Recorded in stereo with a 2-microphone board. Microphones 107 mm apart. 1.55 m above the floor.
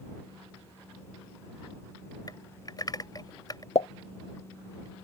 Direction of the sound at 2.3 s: 40° left (ahead or behind).